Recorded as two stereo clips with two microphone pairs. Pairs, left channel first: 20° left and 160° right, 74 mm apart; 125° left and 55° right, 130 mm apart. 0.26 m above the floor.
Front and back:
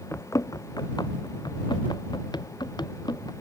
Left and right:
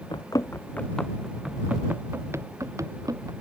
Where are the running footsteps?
70° left; by 3.3 s 5° left.